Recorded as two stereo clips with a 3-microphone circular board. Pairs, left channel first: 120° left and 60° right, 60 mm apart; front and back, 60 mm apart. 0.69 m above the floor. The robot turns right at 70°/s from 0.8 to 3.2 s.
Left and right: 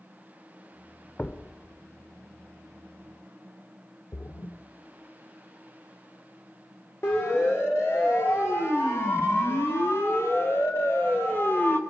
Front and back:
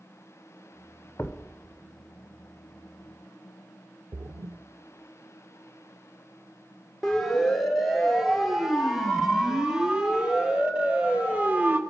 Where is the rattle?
I don't hear a rattle.